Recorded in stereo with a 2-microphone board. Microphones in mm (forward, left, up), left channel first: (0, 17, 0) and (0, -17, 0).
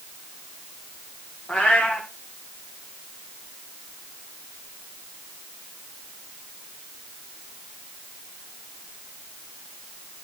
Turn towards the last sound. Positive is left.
turn(degrees=35)  # may be behind; listen again after turning